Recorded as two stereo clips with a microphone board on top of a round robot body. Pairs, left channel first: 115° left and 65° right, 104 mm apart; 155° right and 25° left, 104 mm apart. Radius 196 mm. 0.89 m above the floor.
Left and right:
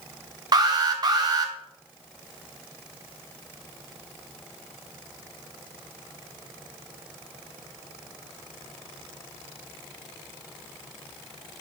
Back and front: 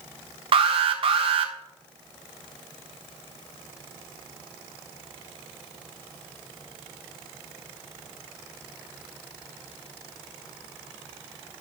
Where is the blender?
No blender in this recording.